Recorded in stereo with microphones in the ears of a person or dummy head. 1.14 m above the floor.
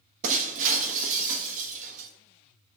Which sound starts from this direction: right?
Breaking glass, at 0.2 s.